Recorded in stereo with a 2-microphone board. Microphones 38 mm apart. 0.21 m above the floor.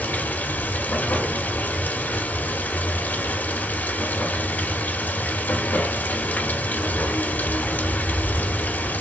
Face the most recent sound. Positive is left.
turn(degrees=55)  # may be behind; listen again after turning